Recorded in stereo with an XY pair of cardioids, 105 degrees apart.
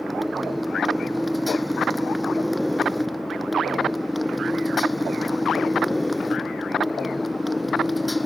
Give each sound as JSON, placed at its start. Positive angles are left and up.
{"t": 0.0, "sound": "a motorcycle", "azimuth_deg": 0}